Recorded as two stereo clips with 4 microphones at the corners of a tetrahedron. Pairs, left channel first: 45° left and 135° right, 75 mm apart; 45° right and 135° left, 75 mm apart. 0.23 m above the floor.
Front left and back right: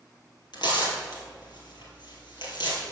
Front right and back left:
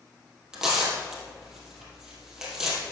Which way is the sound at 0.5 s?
55° left.